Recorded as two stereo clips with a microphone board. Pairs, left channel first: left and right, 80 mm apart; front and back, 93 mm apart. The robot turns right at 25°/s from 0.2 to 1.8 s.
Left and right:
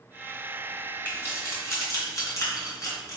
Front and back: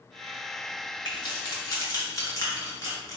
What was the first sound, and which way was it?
Keys jangling, 30° left.